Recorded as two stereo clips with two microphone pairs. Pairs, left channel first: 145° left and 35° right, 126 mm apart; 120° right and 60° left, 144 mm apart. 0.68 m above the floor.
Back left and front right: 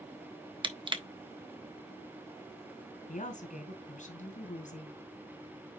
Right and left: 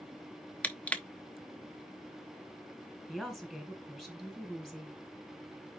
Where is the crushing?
40° right, 0.9 m.